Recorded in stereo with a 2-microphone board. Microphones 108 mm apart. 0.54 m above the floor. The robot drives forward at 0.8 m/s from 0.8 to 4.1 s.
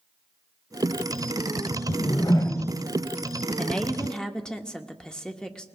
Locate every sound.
1.9 s a whoosh: 55° left (ahead or behind), 0.7 m; by 2.8 s 25° left (ahead or behind), 1.3 m
3.6 s a woman speaking: 10° left (ahead or behind), 0.6 m